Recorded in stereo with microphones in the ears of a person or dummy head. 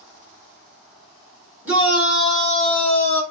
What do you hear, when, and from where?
1.6 s a shout: 15° right (ahead or behind), 2.5 m; by 3.2 s 10° left (ahead or behind), 2.5 m